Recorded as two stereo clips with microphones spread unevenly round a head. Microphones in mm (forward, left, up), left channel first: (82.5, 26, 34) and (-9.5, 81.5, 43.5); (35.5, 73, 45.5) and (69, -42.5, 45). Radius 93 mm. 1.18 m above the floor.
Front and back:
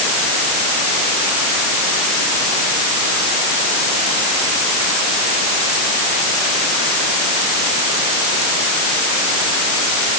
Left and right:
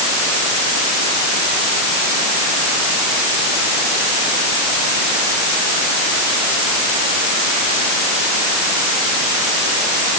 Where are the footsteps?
I don't hear footsteps.